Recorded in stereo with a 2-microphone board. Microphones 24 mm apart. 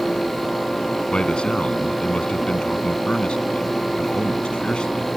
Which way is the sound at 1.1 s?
45° left (ahead or behind).